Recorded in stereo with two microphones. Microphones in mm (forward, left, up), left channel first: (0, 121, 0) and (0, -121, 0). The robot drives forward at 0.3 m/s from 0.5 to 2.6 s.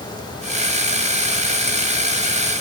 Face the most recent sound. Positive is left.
No sound to turn to.